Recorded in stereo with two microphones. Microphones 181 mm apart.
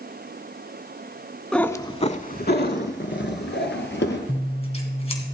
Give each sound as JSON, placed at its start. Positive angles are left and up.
{"t": 1.5, "sound": "a cat meowing", "side_deg": 5, "distance_m": 0.6}
{"t": 4.3, "sound": "scissors", "side_deg": 35, "distance_m": 2.0}